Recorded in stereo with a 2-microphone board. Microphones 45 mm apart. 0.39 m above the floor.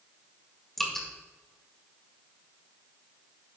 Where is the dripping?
5° left (ahead or behind), 1.8 m.